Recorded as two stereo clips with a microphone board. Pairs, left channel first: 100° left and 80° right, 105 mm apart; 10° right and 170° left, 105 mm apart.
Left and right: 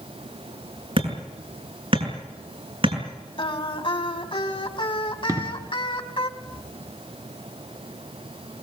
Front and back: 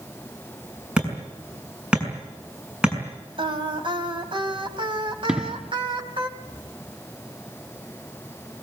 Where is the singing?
135° left, 2.5 m.